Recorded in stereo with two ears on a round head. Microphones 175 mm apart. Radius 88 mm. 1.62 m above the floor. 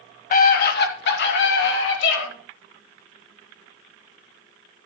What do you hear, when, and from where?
0.3 s a scream: 45° left (ahead or behind), 1.9 m; by 2.2 s 70° left (ahead or behind), 4 m